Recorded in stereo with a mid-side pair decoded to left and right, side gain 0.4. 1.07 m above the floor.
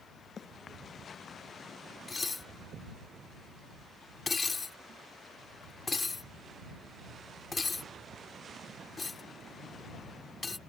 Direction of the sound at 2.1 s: 35° left.